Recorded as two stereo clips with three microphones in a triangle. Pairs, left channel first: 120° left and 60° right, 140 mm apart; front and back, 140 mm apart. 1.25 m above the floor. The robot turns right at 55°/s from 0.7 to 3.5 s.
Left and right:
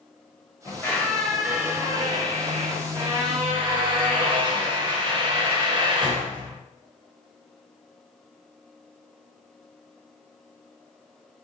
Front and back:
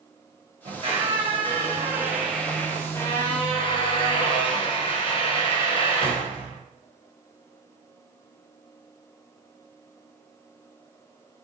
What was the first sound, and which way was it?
A squeak, straight behind.